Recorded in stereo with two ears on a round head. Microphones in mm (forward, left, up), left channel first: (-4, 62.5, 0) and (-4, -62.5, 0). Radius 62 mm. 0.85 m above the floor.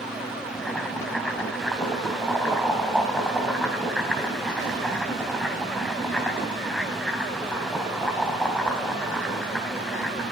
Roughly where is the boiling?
Centre.